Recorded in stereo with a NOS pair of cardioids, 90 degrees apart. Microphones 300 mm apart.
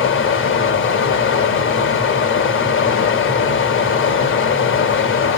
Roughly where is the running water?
Ahead left.